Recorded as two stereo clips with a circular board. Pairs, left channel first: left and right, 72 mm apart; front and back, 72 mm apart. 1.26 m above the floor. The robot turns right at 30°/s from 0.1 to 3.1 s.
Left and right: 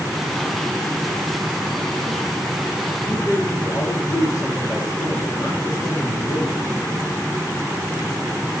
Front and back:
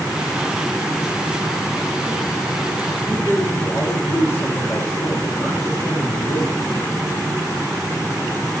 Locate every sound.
3.0 s a man speaking: 50° left, 2 m; by 6.6 s 55° left, 2 m